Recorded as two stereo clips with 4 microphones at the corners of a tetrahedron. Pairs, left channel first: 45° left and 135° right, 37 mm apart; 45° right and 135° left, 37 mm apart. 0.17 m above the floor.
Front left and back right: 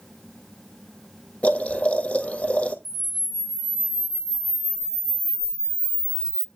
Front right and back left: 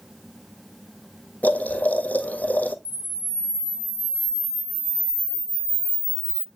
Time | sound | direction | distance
1.4 | boiling | 5° right | 1.8 m
2.9 | a camera shutter | 145° left | 1.0 m